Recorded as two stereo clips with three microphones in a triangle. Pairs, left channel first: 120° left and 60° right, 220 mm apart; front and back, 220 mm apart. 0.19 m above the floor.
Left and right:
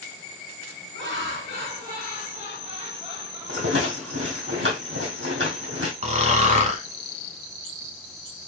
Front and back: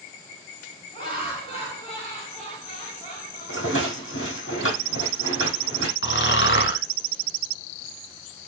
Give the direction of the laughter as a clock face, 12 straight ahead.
2 o'clock.